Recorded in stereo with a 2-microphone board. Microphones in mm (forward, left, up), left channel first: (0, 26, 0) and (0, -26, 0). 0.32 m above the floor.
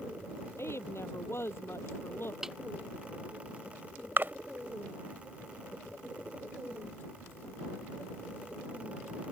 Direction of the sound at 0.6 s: 50° left (ahead or behind).